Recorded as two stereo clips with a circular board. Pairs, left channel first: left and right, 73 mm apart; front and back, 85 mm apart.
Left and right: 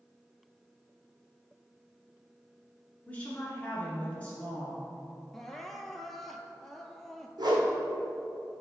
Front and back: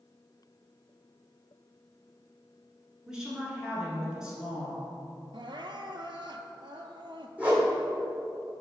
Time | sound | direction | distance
3.1 | a woman speaking | 115° left | 1.7 m
5.3 | crying | 175° left | 0.5 m
7.4 | a whoosh | 105° right | 1.6 m